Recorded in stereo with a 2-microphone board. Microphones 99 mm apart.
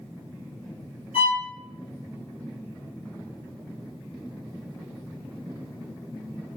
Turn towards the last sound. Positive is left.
turn(degrees=70)  # may be behind; listen again after turning